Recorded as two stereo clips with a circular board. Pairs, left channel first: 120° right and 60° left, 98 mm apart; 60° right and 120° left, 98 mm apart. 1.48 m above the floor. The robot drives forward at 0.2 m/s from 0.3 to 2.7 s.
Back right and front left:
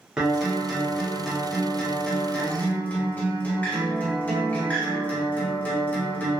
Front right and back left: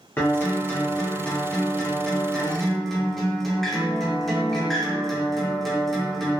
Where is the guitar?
20° right, 0.7 m; by 6.4 s 140° right, 0.7 m.